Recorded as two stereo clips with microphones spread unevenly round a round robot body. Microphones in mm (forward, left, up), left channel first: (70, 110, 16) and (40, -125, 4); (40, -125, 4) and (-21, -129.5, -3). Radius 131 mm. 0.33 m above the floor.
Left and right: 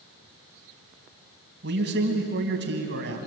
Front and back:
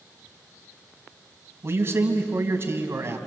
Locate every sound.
1.6 s a man speaking: 140° right, 3 m